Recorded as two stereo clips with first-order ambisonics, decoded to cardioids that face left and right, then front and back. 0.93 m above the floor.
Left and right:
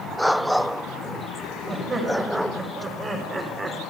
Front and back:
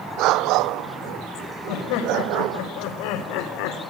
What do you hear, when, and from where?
1.7 s laughter: 15° right, 5 m; by 3.8 s 10° right, 3 m